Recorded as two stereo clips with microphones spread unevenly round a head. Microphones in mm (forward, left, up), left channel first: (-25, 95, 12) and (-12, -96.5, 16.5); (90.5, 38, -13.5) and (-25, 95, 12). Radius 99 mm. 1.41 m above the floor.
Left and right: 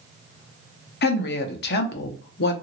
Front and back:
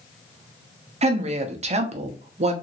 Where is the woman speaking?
120° left, 0.8 m.